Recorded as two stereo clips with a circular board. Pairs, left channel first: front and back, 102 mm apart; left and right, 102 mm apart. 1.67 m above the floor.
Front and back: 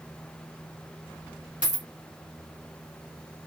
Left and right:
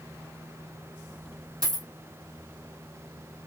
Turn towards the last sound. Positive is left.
turn(degrees=-110)